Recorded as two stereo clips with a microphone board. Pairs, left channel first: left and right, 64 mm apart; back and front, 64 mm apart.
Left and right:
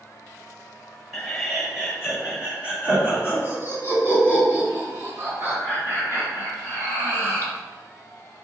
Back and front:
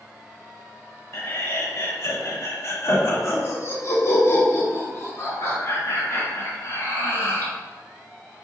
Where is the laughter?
175° left, 1.3 m; by 7.5 s 130° right, 4.5 m.